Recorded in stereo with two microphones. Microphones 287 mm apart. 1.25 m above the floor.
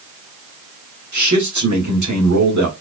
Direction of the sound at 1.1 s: 80° right.